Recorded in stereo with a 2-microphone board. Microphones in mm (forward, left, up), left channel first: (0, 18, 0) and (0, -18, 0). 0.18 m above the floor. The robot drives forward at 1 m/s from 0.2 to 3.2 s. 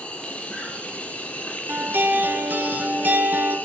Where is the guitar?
65° right (ahead or behind), 4 m; by 3.6 s 50° right (ahead or behind), 5 m.